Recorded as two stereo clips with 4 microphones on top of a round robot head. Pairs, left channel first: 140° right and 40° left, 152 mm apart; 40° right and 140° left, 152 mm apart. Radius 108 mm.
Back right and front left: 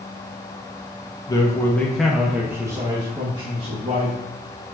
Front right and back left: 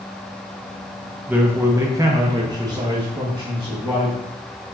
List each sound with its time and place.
1.3 s a man speaking: 155° right, 0.8 m; by 4.2 s 80° left, 1.5 m